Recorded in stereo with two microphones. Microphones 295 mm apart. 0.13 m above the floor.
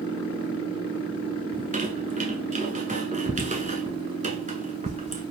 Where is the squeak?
25° right (ahead or behind), 0.9 m.